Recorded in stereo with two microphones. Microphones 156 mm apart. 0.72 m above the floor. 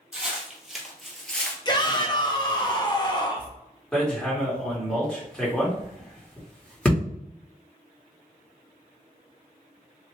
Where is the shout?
30° left (ahead or behind), 0.7 m.